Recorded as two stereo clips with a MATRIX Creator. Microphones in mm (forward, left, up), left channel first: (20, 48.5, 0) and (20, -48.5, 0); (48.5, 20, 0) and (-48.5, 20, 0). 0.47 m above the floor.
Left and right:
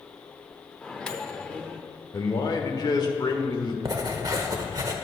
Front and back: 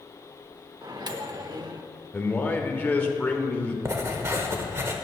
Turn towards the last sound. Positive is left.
turn(degrees=-130)